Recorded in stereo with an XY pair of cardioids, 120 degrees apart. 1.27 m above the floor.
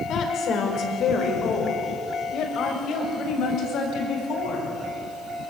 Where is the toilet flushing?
I don't hear a toilet flushing.